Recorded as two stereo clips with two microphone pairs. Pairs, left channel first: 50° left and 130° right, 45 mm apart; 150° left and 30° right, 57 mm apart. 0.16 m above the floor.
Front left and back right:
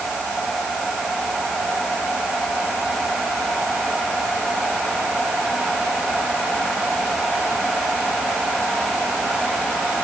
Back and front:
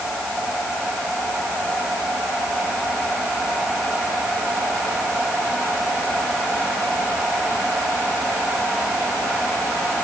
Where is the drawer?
I don't hear a drawer.